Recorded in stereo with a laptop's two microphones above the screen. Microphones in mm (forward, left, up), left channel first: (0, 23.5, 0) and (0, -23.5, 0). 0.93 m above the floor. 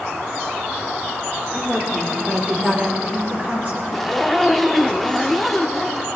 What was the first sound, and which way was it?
A woman speaking, 15° right (ahead or behind).